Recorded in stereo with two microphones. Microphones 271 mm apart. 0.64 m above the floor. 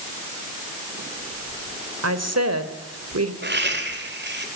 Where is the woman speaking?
65° right (ahead or behind), 3 m.